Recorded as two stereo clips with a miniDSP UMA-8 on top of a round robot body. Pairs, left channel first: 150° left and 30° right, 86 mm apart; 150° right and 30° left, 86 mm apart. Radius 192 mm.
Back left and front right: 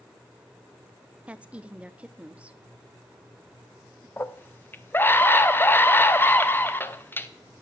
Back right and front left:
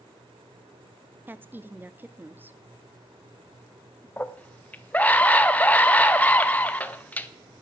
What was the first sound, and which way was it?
A woman speaking, 20° left.